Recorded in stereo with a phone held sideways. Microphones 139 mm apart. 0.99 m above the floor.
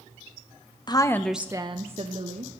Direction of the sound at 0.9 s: 30° left (ahead or behind).